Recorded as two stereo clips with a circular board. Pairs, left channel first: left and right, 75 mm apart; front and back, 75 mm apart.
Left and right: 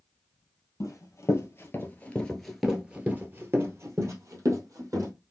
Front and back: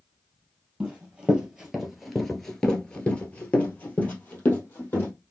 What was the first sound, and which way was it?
Running footsteps, 110° left.